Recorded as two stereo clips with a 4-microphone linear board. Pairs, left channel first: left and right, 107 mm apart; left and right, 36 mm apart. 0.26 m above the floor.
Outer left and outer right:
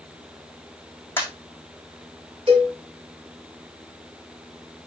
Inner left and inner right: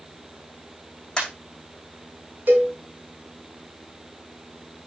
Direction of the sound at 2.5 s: 65° right (ahead or behind).